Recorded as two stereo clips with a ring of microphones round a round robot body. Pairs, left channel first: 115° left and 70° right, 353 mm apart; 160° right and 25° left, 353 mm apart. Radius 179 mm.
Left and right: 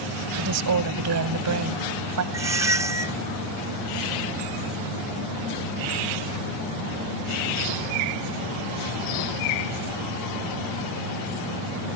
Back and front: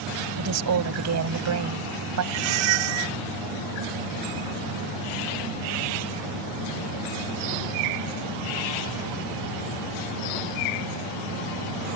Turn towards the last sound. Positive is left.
turn(degrees=15)